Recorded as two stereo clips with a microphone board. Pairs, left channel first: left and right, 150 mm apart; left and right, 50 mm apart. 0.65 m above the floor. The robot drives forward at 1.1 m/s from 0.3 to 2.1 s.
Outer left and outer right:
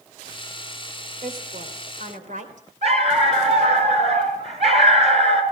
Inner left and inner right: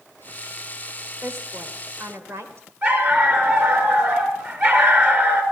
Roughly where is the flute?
No flute in this recording.